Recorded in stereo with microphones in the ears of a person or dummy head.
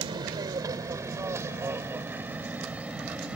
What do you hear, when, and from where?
0.0 s an aircraft: 25° right (ahead or behind); by 3.4 s 5° right (ahead or behind)